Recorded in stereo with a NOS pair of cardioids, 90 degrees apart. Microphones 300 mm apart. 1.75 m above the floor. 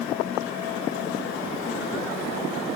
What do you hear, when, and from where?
Only background noise.